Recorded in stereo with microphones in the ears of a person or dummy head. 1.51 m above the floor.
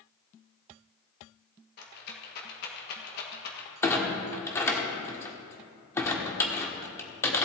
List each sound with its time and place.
1.8 s a rattle: 60° left (ahead or behind), 1.7 m
3.8 s a clunk: 15° left (ahead or behind), 1.6 m